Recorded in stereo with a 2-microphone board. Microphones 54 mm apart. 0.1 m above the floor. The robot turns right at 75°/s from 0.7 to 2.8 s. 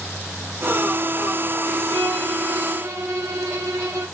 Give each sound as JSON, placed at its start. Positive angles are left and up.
{"t": 1.9, "sound": "a violin", "azimuth_deg": 175, "distance_m": 5.5}